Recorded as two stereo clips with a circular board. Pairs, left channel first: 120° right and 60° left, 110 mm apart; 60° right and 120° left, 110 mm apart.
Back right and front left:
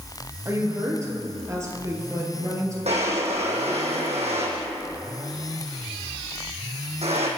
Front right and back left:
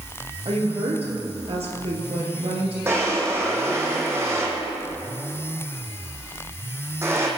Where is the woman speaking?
120° left, 4 m.